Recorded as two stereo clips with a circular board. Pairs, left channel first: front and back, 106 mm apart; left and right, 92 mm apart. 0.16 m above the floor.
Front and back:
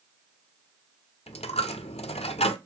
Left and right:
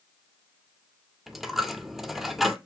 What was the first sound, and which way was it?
A dropped coin, 5° right.